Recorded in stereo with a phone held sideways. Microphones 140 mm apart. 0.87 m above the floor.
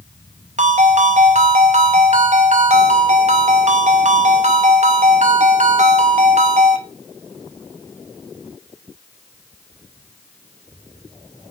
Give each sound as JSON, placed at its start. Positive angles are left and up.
{"t": 0.6, "sound": "a ringtone", "side_deg": -55, "distance_m": 0.7}